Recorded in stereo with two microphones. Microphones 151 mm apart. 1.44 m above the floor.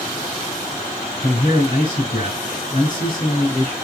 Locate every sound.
1.2 s a man speaking: 50° left (ahead or behind), 1.4 m